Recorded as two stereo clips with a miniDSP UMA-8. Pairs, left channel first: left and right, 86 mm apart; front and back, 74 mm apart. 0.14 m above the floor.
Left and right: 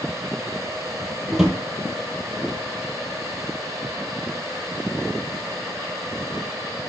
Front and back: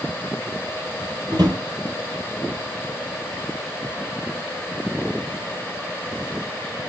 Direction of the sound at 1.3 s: 175° right.